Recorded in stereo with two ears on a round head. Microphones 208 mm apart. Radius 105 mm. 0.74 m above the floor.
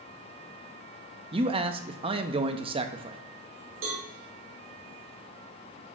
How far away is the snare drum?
I don't hear a snare drum.